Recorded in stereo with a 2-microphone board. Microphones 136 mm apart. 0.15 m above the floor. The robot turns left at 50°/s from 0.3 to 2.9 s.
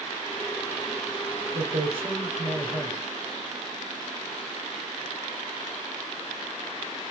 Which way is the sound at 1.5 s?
110° right.